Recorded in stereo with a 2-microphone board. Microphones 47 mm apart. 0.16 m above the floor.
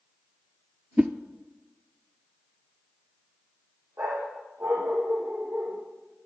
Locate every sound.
1.0 s a whoosh: 30° right (ahead or behind), 0.7 m
4.0 s a dog barking: 75° right (ahead or behind), 3 m